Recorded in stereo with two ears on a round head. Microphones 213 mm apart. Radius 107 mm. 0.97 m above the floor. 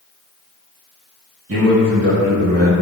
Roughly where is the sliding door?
No sliding door in this recording.